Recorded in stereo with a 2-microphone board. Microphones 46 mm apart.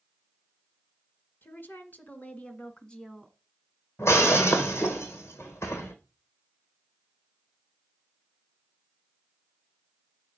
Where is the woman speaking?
50° left (ahead or behind), 2 m; by 3.4 s 5° left (ahead or behind), 1.4 m.